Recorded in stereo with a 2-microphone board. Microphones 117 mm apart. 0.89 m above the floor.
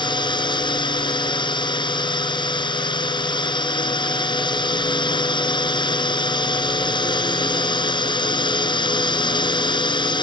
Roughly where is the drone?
Left.